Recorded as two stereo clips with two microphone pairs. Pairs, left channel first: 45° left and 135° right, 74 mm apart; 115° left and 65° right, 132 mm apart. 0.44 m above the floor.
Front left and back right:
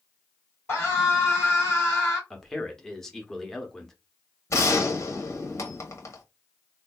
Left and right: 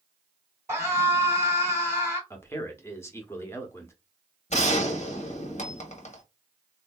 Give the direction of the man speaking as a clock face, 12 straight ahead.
8 o'clock.